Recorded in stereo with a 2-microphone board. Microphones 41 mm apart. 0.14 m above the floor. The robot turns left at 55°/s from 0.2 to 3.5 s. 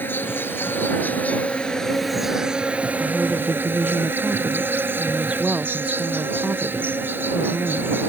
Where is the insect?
105° left; by 8.1 s 75° right.